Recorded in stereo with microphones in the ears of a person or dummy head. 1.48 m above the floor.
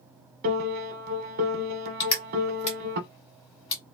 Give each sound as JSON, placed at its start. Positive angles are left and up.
{"t": 0.4, "sound": "a piano", "side_deg": -50, "distance_m": 0.8}
{"t": 2.0, "sound": "crushing", "side_deg": 30, "distance_m": 1.3}